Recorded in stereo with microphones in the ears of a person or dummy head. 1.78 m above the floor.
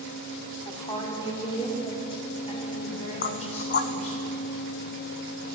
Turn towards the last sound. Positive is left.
turn(degrees=45)  # may be behind; listen again after turning